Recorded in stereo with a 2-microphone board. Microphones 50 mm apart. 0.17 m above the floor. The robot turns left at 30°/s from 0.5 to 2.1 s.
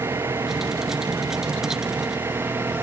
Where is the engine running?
70° right; by 2.8 s 120° right.